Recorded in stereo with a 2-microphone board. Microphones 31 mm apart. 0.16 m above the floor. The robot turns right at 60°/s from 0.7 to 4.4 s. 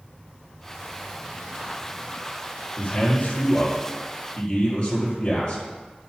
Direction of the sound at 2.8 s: 55° left.